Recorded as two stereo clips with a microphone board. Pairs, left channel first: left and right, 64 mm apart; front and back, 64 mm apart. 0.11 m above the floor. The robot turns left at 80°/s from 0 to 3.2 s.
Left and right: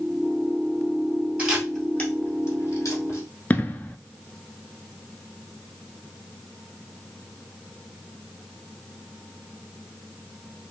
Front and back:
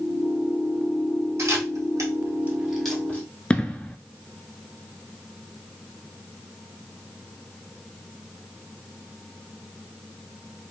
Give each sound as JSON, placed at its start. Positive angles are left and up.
{"t": 1.4, "sound": "a camera shutter", "azimuth_deg": -155, "distance_m": 1.3}
{"t": 3.5, "sound": "an explosion", "azimuth_deg": 55, "distance_m": 0.5}